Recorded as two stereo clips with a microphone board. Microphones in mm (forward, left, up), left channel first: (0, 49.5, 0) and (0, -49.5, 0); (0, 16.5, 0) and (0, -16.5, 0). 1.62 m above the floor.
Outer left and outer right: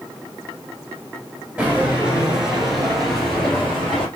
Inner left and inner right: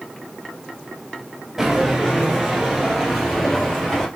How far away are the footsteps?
About 1.7 m.